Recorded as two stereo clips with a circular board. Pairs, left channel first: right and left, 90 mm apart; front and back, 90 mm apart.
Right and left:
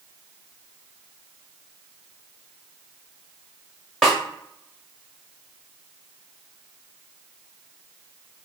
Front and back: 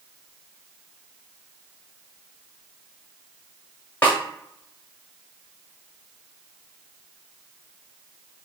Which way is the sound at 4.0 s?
10° right.